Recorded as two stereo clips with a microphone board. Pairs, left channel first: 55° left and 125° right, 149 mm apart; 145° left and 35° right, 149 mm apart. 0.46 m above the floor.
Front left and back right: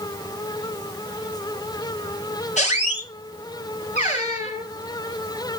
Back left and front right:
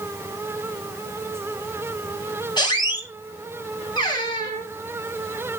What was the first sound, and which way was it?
A squeak, 90° left.